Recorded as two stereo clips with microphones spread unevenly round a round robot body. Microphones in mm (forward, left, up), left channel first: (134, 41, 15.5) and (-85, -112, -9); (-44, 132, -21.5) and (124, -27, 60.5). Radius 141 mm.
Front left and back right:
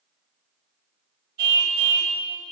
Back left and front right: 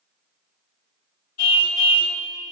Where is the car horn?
155° left, 2.5 m.